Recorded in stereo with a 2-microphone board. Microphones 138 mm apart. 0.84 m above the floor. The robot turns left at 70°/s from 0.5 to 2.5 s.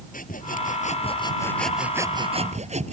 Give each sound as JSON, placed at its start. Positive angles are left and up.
{"t": 0.1, "sound": "sawing", "azimuth_deg": 85}